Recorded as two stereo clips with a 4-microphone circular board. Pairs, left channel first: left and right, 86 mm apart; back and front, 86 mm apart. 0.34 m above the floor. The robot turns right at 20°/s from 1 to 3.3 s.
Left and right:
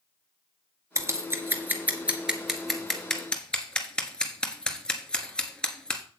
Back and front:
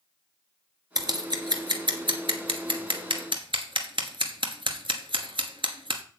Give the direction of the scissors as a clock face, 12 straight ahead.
1 o'clock.